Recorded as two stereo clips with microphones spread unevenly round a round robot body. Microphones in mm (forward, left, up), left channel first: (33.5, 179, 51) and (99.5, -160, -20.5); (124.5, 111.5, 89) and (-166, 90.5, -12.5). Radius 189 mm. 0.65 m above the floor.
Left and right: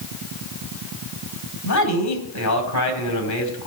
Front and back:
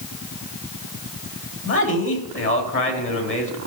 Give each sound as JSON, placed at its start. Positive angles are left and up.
{"t": 1.6, "sound": "a man speaking", "azimuth_deg": 55, "distance_m": 4.0}